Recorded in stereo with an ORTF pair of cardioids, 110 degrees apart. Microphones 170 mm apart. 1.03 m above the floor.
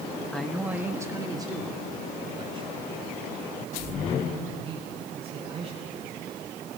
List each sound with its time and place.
0.3 s a man speaking: 5° left, 1.1 m; by 6.1 s 35° right, 9 m